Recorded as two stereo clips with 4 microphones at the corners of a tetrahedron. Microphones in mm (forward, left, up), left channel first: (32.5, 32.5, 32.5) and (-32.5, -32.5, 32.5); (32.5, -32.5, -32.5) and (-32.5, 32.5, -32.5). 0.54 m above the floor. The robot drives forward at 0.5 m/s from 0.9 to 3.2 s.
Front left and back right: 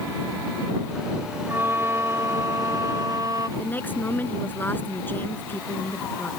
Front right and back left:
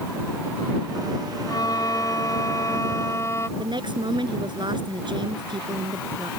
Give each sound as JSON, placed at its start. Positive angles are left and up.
{"t": 1.5, "sound": "a violin", "azimuth_deg": -75}
{"t": 3.6, "sound": "a woman speaking", "azimuth_deg": 110}